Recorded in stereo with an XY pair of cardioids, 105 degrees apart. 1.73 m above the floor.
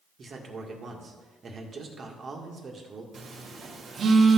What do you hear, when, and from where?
0.2 s a man speaking: 45° right, 1.9 m
3.1 s a phone buzzing: 50° right, 1.7 m